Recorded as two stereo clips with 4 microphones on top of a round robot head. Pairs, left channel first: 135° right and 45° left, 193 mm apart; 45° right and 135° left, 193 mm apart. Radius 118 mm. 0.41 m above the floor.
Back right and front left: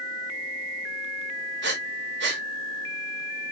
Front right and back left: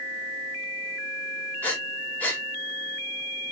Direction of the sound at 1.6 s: 35° left.